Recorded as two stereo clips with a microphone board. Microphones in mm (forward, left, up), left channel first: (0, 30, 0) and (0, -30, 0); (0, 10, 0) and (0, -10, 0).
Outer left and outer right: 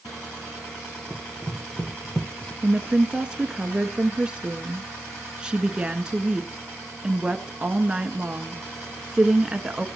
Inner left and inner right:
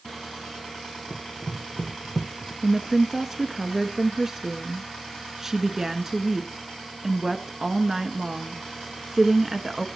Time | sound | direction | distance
1.1 | running footsteps | 20° left (ahead or behind) | 1.8 m
2.6 | a woman speaking | 15° right (ahead or behind) | 1.1 m